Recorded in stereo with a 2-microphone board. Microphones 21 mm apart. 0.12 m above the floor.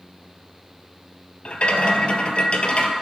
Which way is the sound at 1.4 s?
60° left (ahead or behind).